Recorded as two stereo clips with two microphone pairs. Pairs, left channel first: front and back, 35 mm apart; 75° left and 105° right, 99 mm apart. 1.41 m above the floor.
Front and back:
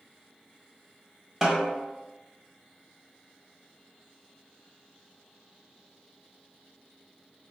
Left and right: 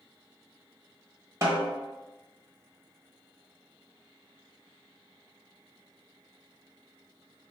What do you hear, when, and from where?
1.4 s a snare drum: 125° right, 1.3 m